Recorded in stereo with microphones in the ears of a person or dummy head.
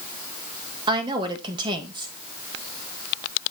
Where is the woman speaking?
25° right (ahead or behind), 1.5 m.